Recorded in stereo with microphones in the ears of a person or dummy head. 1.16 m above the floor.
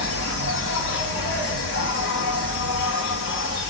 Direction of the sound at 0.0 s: 55° left (ahead or behind).